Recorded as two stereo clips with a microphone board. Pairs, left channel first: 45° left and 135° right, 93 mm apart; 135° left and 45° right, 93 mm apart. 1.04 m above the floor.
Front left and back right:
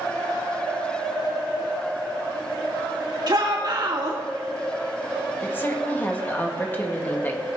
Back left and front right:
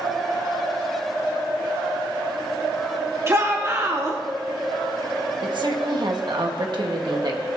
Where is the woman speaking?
20° right, 1.5 m.